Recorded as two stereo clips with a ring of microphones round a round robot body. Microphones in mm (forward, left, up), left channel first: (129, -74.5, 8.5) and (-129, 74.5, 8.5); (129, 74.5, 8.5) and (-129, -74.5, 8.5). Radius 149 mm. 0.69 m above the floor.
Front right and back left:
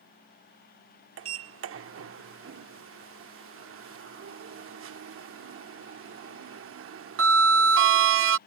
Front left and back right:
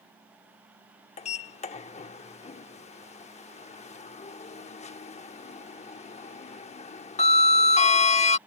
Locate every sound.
1.2 s a sliding door: 100° left